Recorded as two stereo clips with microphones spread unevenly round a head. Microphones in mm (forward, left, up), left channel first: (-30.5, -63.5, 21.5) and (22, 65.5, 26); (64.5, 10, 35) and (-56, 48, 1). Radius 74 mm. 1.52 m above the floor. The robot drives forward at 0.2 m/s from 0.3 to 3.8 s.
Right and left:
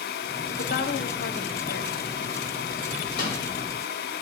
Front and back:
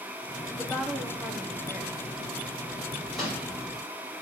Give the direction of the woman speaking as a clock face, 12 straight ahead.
4 o'clock.